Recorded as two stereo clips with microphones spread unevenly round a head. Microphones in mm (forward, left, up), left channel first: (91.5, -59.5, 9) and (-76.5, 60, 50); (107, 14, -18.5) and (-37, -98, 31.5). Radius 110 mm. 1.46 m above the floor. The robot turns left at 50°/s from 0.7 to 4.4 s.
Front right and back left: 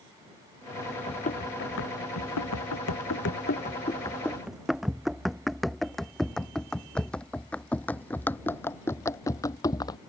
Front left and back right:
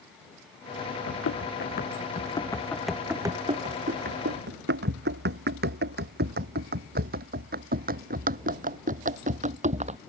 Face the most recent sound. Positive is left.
turn(degrees=-115)